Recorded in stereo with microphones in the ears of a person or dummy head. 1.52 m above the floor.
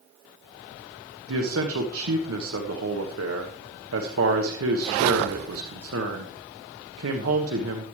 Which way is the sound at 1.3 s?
80° right.